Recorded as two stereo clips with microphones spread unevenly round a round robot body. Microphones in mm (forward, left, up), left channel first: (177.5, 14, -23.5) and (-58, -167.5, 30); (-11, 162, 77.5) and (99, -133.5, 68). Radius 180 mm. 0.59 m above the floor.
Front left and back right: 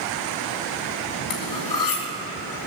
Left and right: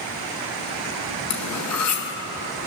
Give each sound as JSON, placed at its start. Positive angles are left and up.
{"t": 1.3, "sound": "cutlery clinking", "azimuth_deg": 70, "distance_m": 2.5}